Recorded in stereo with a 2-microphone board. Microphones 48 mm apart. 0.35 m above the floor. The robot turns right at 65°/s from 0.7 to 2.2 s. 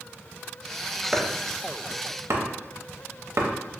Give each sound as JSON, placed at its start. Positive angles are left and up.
{"t": 1.1, "sound": "chopping", "side_deg": -5, "distance_m": 0.5}